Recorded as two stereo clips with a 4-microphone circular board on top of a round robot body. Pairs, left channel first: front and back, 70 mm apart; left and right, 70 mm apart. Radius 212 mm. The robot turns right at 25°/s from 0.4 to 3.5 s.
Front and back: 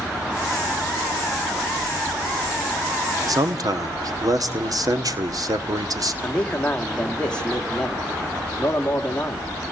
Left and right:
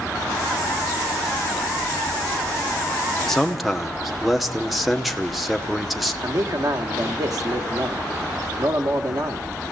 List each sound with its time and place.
3.3 s a man speaking: 175° left, 2 m; by 6.1 s straight behind, 2 m
6.2 s a man speaking: 75° right, 2.5 m